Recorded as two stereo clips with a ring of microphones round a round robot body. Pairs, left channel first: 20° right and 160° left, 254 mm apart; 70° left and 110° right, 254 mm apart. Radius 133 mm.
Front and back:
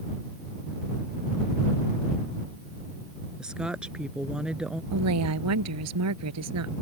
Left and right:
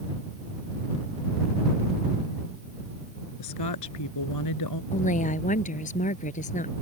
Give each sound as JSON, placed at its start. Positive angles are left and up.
{"t": 3.4, "sound": "a woman speaking", "azimuth_deg": 70}
{"t": 4.9, "sound": "a woman speaking", "azimuth_deg": 130}